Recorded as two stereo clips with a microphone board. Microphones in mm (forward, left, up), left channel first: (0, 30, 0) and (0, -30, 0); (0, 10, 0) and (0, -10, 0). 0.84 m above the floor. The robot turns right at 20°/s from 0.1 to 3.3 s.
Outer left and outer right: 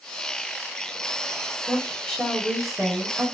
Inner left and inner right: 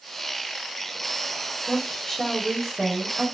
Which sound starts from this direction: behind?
A woman speaking, at 1.7 s.